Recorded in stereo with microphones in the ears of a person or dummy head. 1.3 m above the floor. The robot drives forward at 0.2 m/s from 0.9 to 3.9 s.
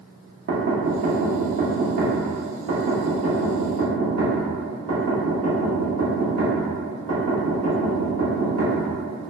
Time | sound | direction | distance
0.5 | knocking | 50° right (ahead or behind) | 0.7 m